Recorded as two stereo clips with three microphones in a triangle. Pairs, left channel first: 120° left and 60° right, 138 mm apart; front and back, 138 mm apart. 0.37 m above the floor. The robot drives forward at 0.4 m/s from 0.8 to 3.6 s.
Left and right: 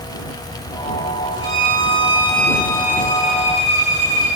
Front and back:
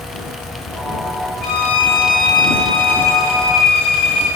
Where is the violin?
175° left, 4.5 m.